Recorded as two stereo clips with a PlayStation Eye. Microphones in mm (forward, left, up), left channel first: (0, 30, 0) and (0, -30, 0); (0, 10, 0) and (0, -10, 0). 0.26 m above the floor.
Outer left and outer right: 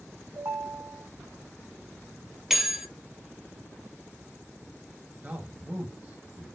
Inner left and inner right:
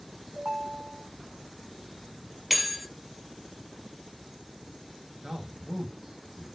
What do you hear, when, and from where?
0.3 s a ringtone: 50° right (ahead or behind), 1.7 m
2.5 s a bell: 5° right (ahead or behind), 0.8 m
5.2 s a man speaking: 25° right (ahead or behind), 0.9 m